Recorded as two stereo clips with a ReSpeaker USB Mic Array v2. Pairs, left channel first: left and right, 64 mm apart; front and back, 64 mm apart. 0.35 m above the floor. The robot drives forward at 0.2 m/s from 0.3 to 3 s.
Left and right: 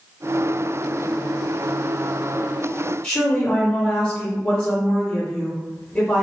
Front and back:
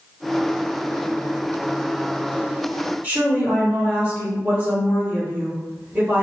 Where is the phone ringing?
No phone ringing in this recording.